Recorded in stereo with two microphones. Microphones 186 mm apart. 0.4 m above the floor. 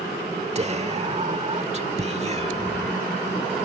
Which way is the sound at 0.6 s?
40° right (ahead or behind).